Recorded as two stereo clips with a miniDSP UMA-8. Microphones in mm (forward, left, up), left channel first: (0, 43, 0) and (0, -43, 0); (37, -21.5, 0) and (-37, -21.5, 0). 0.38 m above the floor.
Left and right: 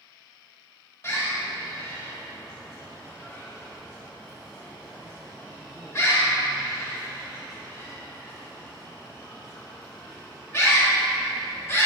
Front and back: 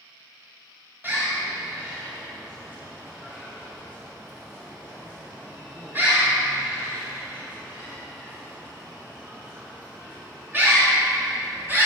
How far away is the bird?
About 1.6 m.